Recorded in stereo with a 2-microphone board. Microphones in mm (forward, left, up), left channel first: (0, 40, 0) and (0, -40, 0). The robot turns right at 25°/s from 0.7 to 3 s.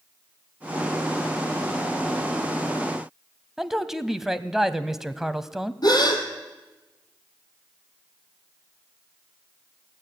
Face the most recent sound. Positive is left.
turn(degrees=55)  # may be behind; listen again after turning